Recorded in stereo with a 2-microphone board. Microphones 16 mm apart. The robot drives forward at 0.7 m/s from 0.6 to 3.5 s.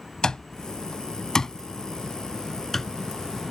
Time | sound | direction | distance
0.2 | an alarm clock | 55° left (ahead or behind) | ?